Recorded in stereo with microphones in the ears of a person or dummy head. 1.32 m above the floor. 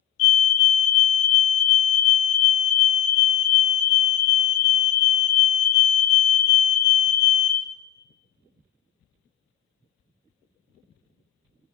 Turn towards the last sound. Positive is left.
turn(degrees=35)  # may be behind; listen again after turning